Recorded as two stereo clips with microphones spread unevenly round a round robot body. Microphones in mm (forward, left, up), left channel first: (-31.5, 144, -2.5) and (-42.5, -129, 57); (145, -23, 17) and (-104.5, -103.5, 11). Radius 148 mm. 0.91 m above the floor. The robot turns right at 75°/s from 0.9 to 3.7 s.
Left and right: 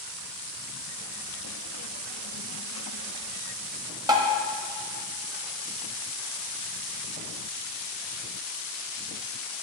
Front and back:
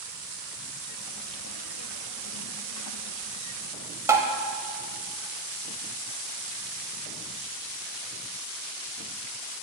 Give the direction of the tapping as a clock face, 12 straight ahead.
3 o'clock.